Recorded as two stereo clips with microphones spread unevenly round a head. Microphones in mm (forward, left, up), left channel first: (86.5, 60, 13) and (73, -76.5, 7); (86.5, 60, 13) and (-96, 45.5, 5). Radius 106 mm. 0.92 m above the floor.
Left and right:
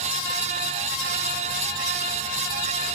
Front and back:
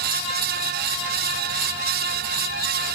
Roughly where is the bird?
No bird in this recording.